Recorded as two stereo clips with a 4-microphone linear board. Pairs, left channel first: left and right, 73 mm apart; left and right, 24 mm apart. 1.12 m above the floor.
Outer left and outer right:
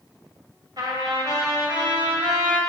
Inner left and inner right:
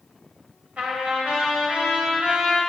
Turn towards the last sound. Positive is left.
turn(degrees=-65)  # may be behind; listen again after turning